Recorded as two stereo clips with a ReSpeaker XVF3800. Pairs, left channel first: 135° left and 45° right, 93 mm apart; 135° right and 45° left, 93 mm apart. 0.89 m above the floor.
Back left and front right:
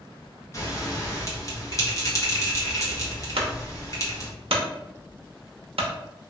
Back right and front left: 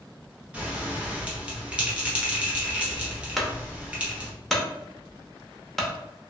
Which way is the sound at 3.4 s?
50° right.